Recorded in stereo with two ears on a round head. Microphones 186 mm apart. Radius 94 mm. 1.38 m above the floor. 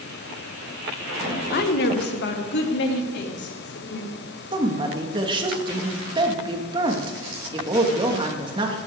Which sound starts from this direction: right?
A woman speaking, at 4.5 s.